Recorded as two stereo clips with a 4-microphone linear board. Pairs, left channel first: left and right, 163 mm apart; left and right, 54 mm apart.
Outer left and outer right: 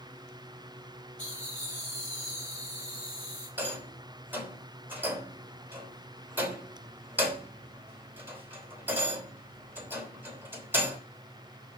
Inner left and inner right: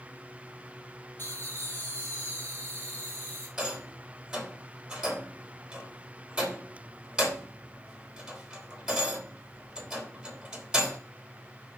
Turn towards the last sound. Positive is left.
turn(degrees=-10)  # may be behind; listen again after turning